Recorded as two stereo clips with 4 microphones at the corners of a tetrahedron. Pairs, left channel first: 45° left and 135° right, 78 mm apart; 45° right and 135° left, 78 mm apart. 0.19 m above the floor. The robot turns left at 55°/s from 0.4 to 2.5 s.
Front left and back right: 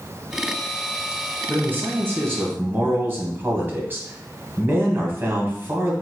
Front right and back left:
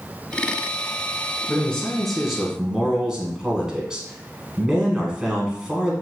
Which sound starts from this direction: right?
A man speaking, at 1.5 s.